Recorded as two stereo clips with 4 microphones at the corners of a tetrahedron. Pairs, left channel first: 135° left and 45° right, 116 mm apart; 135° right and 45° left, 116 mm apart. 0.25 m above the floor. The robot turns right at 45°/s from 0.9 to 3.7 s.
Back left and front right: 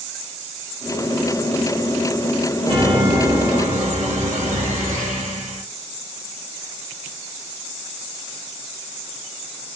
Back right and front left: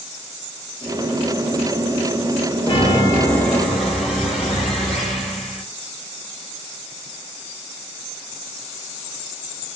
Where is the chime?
95° right, 3 m; by 5.6 s 45° right, 3 m.